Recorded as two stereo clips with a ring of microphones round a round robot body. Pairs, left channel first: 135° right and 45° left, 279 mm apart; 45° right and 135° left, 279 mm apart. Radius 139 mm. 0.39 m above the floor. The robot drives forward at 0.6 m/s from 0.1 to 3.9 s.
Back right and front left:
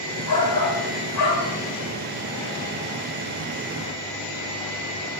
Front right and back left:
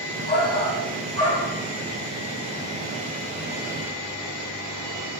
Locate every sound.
0.3 s a shout: 105° right, 3 m; by 1.5 s 120° right, 3.5 m